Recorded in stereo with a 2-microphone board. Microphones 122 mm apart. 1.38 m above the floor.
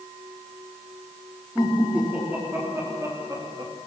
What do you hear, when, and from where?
1.6 s laughter: 10° right (ahead or behind), 4.5 m; by 3.7 s 35° right (ahead or behind), 3 m